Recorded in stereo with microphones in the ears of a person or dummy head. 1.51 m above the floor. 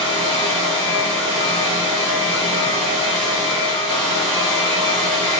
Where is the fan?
45° right (ahead or behind), 1.4 m.